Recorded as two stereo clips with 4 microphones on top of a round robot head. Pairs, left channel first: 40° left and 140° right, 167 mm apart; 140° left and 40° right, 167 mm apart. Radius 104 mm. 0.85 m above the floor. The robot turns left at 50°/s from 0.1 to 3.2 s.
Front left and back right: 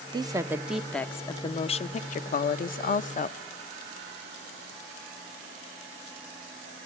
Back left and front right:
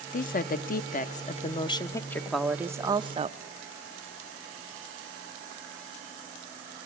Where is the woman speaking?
165° left, 0.6 m; by 3.4 s 10° left, 0.6 m.